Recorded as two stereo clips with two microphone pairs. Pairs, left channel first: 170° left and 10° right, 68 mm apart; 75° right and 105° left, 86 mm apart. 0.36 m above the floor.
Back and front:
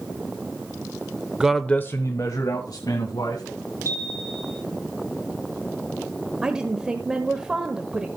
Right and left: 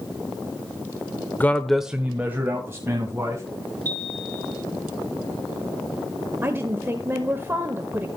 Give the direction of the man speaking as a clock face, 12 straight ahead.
2 o'clock.